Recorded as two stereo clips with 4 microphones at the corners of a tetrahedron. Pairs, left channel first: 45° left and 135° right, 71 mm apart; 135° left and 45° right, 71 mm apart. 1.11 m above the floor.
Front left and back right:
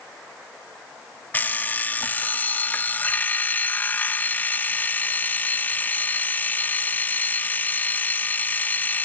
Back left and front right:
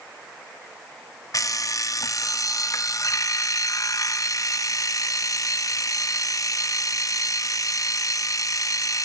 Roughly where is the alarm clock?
Left.